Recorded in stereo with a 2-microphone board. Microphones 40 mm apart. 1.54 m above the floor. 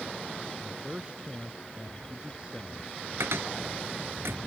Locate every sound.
0.6 s a man speaking: 25° right (ahead or behind); by 3.1 s 20° right (ahead or behind)
3.2 s a cupboard door: 80° right